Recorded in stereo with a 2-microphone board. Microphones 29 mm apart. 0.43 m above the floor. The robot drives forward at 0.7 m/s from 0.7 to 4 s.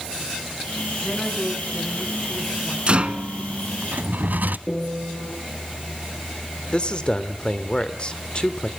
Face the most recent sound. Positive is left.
turn(degrees=35)  # may be behind; listen again after turning